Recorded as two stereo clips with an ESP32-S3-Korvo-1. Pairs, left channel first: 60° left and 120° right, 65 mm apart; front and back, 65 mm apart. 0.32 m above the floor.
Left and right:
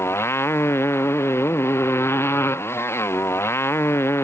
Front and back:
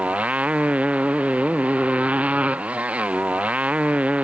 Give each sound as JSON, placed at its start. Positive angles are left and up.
{"t": 0.0, "sound": "a motorcycle", "azimuth_deg": 110}